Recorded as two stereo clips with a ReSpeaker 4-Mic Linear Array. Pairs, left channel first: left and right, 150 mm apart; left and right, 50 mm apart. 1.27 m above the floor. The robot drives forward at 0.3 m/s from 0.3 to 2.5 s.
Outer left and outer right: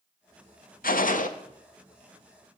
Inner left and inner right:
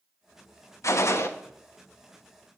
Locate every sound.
0.8 s a gunshot: 70° left (ahead or behind), 0.6 m; by 1.3 s 60° left (ahead or behind), 0.6 m